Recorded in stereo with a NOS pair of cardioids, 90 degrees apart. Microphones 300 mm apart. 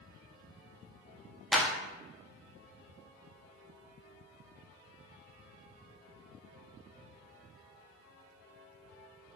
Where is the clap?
Straight ahead, 0.6 m.